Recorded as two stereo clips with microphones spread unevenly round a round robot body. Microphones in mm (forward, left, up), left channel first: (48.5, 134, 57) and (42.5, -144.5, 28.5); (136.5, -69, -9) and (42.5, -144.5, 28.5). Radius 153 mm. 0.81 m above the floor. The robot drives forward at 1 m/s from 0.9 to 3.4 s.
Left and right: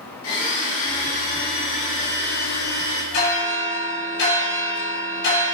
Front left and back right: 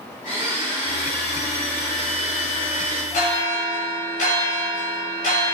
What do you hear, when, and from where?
0.2 s a blender: 135° left, 4 m; by 3.0 s 150° left, 6 m
3.1 s a bell: 140° left, 4 m